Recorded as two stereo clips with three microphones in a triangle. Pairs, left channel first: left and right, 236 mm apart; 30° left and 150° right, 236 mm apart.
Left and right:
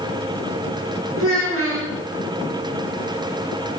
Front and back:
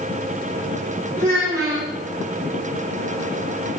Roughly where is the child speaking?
Right.